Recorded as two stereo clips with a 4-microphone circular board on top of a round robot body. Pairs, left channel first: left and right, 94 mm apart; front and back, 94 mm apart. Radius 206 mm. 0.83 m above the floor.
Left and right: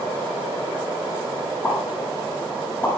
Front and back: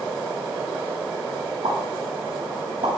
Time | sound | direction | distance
1.6 | a pop | 160° left | 9 m